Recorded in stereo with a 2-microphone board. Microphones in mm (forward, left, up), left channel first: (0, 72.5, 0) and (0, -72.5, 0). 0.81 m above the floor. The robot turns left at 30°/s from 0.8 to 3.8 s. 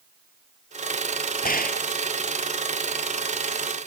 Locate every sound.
1.4 s a gunshot: 85° left; by 1.9 s 80° left